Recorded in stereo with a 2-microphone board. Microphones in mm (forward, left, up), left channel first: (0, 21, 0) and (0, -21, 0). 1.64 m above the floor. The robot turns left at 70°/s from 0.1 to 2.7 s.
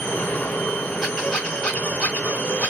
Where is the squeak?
175° right, 1.8 m; by 2.7 s 65° left, 1.8 m.